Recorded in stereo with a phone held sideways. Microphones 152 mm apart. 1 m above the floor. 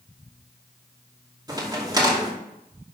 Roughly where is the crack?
Right.